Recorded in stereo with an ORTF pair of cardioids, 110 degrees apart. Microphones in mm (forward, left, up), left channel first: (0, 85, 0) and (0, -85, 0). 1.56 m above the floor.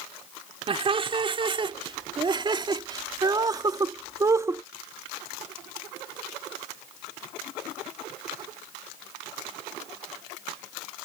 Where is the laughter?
35° right; by 4.6 s 15° right.